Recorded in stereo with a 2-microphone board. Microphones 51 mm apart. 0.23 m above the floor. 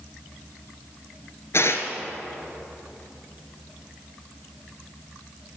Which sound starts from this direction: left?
Tearing paper, at 1.5 s.